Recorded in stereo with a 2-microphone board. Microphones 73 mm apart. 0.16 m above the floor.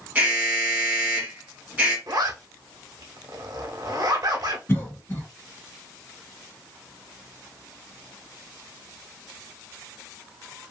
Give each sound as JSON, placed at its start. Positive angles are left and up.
{"t": 0.1, "sound": "an alarm", "side_deg": -25, "distance_m": 1.4}
{"t": 2.1, "sound": "a zipper", "side_deg": -55, "distance_m": 1.0}
{"t": 4.7, "sound": "a cough", "side_deg": 30, "distance_m": 2.0}